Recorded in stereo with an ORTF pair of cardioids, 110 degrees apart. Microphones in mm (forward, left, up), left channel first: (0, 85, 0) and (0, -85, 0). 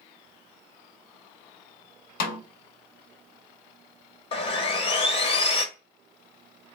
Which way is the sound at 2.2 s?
65° left.